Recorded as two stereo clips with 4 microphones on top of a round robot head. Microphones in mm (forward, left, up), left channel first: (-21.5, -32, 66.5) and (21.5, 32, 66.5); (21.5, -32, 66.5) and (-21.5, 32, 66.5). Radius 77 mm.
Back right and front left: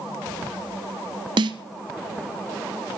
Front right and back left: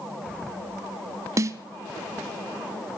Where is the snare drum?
75° left, 1.1 m.